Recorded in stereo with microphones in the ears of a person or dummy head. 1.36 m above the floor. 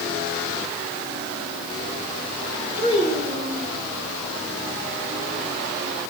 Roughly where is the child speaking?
Left.